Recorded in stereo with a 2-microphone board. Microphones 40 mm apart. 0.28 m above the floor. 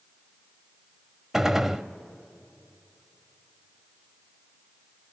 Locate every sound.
1.3 s a gunshot: 10° right (ahead or behind), 0.5 m